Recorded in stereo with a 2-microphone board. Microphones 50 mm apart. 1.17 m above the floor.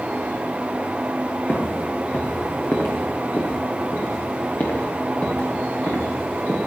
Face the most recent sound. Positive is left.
turn(degrees=50)  # may be behind; listen again after turning